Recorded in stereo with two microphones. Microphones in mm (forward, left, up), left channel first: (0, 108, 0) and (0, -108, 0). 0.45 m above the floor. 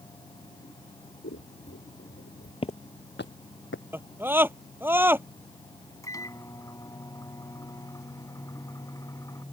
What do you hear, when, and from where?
1.2 s scissors: 70° left (ahead or behind)
2.6 s footsteps: 25° left (ahead or behind); by 3.8 s 70° left (ahead or behind)
3.9 s a scream: 10° right (ahead or behind)
6.0 s a microwave: 15° left (ahead or behind)